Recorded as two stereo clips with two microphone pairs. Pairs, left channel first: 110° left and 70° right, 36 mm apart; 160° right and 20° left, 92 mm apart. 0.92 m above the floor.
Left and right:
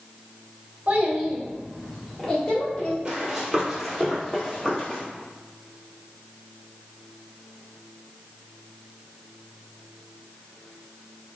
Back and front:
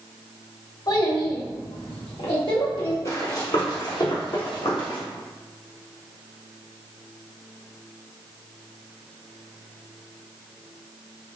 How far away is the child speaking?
About 1.2 m.